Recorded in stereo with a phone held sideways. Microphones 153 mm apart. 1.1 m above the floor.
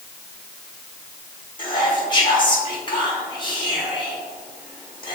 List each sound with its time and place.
1.6 s whispering: 30° left (ahead or behind), 1.6 m